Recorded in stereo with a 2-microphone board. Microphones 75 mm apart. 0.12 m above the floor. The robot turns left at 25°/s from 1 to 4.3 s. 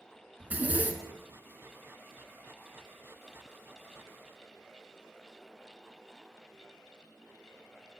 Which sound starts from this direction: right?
A zipper, at 0.4 s.